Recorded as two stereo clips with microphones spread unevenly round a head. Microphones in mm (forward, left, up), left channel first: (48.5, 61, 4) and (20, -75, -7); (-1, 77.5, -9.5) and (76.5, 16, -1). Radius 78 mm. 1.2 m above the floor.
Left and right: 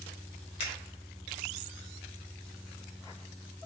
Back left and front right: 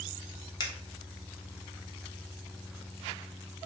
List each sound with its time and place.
0.6 s a finger snap: 120° left, 0.6 m